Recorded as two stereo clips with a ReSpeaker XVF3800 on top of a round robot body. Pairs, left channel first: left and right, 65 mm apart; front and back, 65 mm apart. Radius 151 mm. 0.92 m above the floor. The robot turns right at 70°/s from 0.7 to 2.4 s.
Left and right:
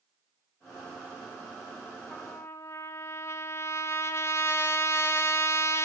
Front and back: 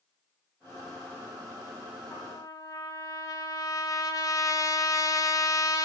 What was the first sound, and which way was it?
A trumpet, 15° left.